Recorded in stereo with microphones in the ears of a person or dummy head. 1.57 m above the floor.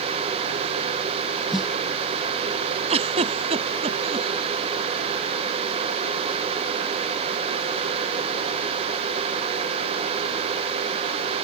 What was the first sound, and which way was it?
A snare drum, 5° right (ahead or behind).